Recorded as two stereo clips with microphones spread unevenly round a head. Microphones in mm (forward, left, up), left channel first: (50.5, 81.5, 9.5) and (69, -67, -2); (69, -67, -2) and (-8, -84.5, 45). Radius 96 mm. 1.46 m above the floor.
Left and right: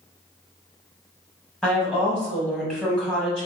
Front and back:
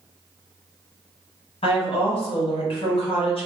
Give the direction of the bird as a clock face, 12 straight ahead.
I don't hear a bird.